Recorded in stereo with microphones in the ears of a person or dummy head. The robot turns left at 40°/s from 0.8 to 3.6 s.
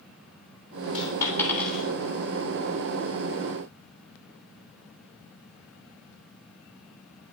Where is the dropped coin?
35° left (ahead or behind), 3 m; by 1.8 s centre (ahead or behind), 3 m.